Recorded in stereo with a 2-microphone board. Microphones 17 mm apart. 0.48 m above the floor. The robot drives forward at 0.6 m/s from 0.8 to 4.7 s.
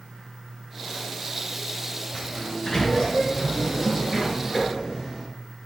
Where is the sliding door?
35° left (ahead or behind), 3 m; by 5.3 s 25° left (ahead or behind), 4.5 m.